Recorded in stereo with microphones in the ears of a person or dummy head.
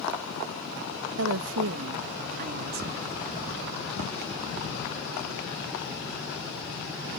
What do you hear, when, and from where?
1.2 s a woman speaking: 70° right (ahead or behind); by 3.1 s 40° right (ahead or behind)